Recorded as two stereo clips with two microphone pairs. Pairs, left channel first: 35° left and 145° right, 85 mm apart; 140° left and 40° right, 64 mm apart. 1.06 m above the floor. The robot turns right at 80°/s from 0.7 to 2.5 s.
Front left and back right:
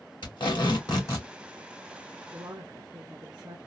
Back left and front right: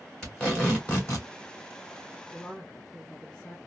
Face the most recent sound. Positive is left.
turn(degrees=-160)